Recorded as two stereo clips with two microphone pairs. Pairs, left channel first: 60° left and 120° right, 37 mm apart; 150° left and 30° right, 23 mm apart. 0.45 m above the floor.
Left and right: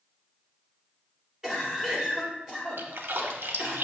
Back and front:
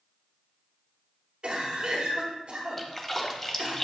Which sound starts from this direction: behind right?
A splash, at 2.8 s.